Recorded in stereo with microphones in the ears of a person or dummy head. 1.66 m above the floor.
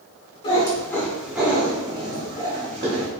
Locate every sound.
0.4 s a cat meowing: 30° left (ahead or behind), 1.6 m; by 3.1 s 45° right (ahead or behind), 2.5 m